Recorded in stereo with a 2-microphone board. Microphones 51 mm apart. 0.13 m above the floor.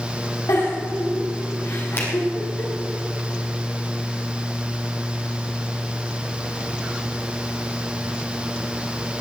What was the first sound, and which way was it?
A giggle, 85° left.